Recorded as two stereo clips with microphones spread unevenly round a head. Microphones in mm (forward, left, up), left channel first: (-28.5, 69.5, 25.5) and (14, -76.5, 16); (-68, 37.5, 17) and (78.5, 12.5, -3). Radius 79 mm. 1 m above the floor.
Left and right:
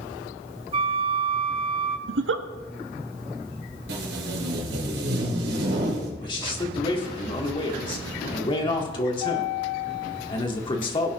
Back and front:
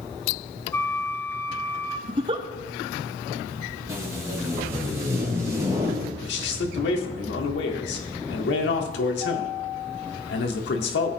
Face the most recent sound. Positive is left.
turn(degrees=165)